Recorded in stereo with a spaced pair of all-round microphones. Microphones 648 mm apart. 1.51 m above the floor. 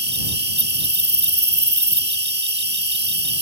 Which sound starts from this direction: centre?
An insect, at 0.0 s.